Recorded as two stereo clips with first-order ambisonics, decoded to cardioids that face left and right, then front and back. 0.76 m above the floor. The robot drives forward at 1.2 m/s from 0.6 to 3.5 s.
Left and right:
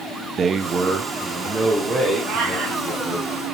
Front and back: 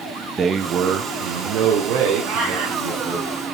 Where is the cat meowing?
140° right, 3.5 m; by 2.8 s 150° right, 4 m.